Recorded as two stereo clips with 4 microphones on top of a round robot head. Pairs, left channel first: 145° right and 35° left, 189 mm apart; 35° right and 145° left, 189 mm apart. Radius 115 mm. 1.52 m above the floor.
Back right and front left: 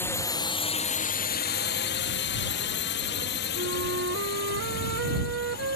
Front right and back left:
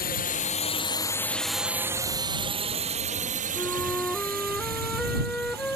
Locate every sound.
0.0 s a drone: 65° right; by 5.8 s straight behind
3.5 s a flute: 50° left